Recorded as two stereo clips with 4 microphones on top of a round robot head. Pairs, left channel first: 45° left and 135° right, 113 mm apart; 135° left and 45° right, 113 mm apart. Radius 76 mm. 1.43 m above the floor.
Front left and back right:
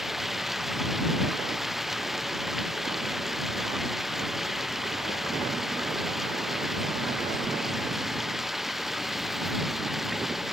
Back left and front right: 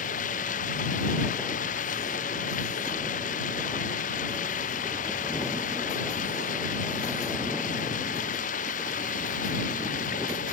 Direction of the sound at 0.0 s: 135° left.